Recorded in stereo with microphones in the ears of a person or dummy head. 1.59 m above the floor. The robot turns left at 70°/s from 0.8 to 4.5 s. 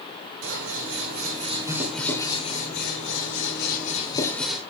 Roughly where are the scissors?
Right.